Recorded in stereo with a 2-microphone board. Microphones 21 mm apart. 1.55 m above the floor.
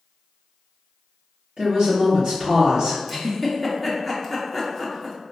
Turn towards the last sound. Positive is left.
turn(degrees=0)  # may be behind; listen again after turning